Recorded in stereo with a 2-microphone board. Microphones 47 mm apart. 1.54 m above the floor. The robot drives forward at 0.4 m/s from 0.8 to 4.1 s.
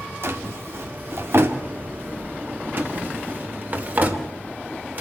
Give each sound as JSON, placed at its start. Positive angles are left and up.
{"t": 0.2, "sound": "a drawer", "side_deg": -55, "distance_m": 1.7}